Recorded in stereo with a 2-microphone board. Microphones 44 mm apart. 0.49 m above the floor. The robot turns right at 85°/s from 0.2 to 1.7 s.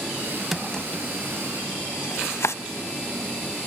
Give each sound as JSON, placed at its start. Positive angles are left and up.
{"t": 0.5, "sound": "a drawer", "side_deg": -5, "distance_m": 0.7}